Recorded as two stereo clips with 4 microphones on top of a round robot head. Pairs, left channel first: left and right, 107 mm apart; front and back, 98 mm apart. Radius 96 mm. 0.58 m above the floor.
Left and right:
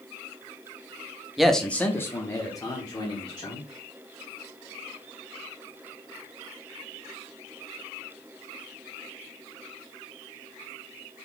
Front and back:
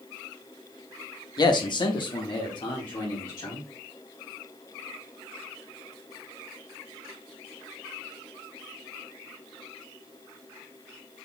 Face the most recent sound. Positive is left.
turn(degrees=45)